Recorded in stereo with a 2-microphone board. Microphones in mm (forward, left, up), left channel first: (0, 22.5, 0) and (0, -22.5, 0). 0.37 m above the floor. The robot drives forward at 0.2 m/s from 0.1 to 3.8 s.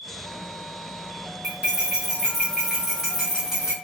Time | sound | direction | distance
1.4 | cutlery clinking | 20° right (ahead or behind) | 1.2 m